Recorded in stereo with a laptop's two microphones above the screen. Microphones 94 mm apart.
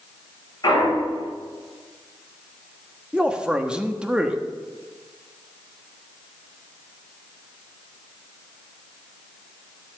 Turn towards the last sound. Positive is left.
turn(degrees=-10)  # may be behind; listen again after turning